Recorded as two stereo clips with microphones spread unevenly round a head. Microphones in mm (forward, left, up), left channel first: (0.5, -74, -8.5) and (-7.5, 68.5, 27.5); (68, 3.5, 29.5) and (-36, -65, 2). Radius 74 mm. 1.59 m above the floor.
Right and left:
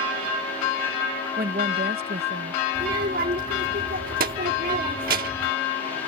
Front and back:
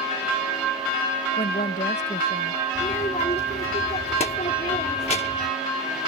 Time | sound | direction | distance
1.4 | a woman speaking | 65° left | ?
2.8 | a child speaking | 80° left | ?